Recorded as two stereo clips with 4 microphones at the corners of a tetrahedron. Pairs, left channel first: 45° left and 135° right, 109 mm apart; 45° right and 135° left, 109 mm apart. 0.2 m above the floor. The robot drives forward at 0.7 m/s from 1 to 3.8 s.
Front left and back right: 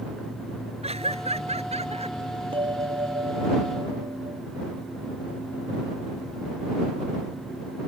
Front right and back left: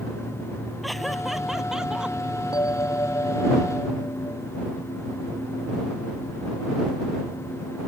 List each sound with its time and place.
0.8 s laughter: 135° right; by 2.2 s 145° right
2.5 s a bell: 100° right; by 4.4 s 110° right